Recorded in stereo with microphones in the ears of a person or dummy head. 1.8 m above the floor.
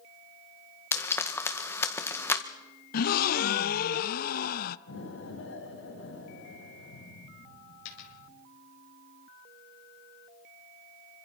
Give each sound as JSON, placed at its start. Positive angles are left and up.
{"t": 0.9, "sound": "frying", "side_deg": 15, "distance_m": 1.7}
{"t": 2.9, "sound": "a gasp", "side_deg": 55, "distance_m": 0.6}
{"t": 4.9, "sound": "an explosion", "side_deg": 90, "distance_m": 9.5}
{"t": 7.8, "sound": "a dropped coin", "side_deg": 75, "distance_m": 4.5}